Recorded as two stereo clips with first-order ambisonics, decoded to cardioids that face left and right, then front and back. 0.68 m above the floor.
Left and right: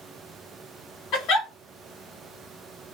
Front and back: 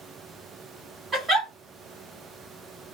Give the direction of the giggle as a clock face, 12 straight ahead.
9 o'clock.